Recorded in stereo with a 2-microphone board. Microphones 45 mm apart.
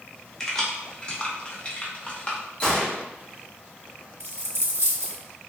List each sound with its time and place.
0.4 s keys jangling: 10° left (ahead or behind), 0.9 m; by 2.4 s 25° left (ahead or behind), 0.9 m
2.6 s a gunshot: 25° left (ahead or behind), 1.4 m
4.2 s a dropped coin: 70° right (ahead or behind), 0.9 m